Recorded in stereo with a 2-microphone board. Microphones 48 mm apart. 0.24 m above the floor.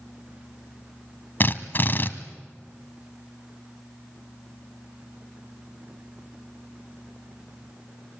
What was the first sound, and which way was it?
A drill, 45° left (ahead or behind).